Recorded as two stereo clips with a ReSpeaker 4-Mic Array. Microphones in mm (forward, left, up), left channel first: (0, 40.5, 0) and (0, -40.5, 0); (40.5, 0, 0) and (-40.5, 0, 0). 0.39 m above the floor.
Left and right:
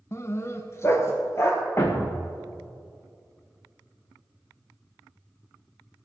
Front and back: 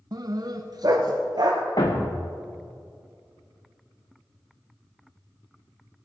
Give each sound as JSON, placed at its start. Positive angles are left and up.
{"t": 0.1, "sound": "a dog barking", "azimuth_deg": 145, "distance_m": 0.6}
{"t": 1.8, "sound": "a thud", "azimuth_deg": 35, "distance_m": 2.0}